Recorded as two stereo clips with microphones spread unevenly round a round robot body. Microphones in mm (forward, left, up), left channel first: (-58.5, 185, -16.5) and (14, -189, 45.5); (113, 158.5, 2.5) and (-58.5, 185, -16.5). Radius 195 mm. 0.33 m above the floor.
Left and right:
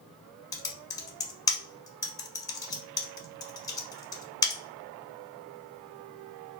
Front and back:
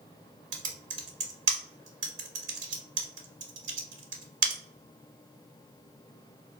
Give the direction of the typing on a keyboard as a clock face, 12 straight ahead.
6 o'clock.